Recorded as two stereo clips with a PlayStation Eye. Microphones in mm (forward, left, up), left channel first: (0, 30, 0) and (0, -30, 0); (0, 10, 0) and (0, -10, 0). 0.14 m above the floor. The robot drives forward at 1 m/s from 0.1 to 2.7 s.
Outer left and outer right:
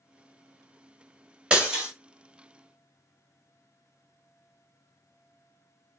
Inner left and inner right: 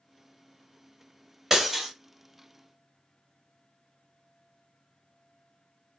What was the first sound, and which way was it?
Breaking glass, 15° right (ahead or behind).